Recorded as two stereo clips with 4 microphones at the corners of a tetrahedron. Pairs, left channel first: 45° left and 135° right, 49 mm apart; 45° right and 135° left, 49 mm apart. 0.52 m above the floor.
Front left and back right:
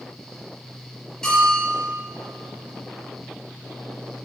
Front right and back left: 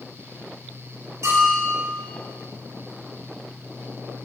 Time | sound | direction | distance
1.2 | a bell | 120° left | 4 m